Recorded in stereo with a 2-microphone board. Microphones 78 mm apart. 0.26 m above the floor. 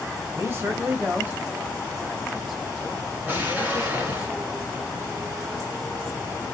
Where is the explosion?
25° right (ahead or behind), 2.0 m.